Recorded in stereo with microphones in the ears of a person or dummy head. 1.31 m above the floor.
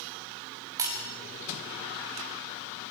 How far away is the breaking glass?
About 6 m.